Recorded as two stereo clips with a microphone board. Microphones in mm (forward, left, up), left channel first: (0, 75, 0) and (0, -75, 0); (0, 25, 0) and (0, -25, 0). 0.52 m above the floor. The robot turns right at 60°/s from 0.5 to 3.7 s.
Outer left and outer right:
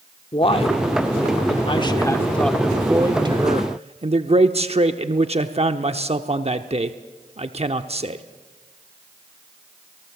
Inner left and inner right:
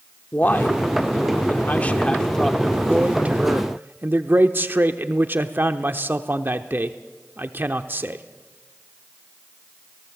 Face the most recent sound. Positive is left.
turn(degrees=-110)